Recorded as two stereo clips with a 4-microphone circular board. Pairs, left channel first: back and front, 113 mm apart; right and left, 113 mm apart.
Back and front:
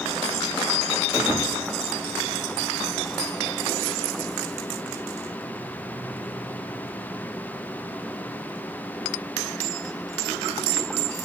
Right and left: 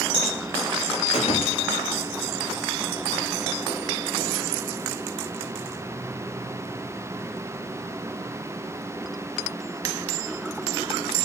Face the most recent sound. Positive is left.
turn(degrees=-70)